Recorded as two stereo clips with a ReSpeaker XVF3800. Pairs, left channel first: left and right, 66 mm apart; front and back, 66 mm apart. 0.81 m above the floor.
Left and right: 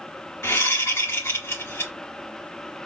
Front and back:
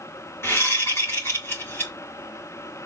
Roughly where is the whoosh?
Ahead left.